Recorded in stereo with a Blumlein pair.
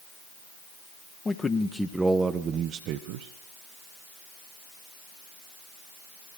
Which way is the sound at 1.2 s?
15° left.